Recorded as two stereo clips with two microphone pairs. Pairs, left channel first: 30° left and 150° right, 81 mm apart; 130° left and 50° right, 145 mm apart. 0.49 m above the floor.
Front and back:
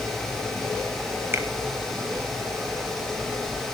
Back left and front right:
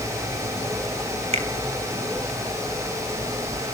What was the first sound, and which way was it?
A finger snap, 90° right.